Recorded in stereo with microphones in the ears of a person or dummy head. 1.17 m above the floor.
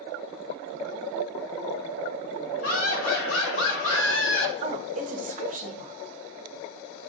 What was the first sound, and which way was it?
Laughter, 80° left.